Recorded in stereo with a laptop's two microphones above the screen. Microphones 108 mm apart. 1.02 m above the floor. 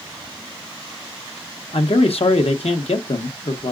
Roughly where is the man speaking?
Left.